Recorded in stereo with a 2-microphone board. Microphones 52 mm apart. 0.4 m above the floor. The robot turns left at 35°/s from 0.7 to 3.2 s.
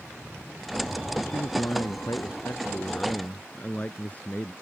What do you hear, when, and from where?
1.2 s a man speaking: 100° left; by 4.5 s 30° left